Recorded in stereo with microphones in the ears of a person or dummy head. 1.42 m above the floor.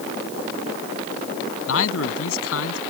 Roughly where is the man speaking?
Left.